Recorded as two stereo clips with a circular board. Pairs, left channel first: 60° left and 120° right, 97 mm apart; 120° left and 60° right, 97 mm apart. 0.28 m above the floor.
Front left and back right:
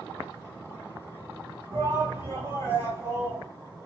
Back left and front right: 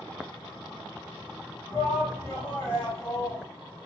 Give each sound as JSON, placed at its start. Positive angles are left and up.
{"t": 1.7, "sound": "a shout", "azimuth_deg": -160, "distance_m": 1.7}